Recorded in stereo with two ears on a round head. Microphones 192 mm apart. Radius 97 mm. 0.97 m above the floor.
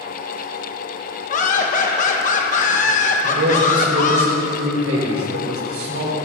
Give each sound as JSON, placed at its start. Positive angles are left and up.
{"t": 1.3, "sound": "laughter", "side_deg": 40, "distance_m": 1.0}
{"t": 3.2, "sound": "a man speaking", "side_deg": -70, "distance_m": 4.5}